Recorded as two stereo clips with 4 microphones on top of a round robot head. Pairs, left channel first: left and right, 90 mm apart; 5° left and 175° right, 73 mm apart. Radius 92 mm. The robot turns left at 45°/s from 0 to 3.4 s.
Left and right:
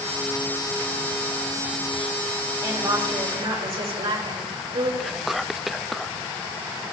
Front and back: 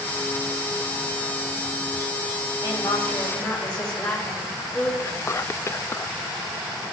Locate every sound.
2.6 s a woman speaking: 35° right, 3.5 m; by 4.9 s 70° right, 3.5 m
5.0 s whispering: 5° right, 0.5 m